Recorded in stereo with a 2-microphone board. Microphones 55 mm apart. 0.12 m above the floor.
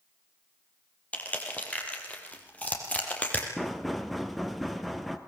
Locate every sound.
1.1 s crushing: 25° left (ahead or behind), 4.5 m
3.6 s knocking: centre (ahead or behind), 1.8 m